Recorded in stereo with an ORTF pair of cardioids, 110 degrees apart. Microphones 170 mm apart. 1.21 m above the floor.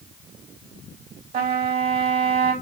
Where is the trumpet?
65° right, 3.5 m.